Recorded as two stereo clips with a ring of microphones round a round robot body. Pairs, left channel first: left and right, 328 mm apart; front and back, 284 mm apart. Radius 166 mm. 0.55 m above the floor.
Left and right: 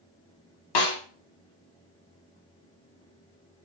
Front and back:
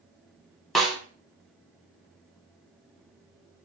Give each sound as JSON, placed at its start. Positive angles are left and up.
{"t": 0.8, "sound": "a snare drum", "azimuth_deg": 90, "distance_m": 0.8}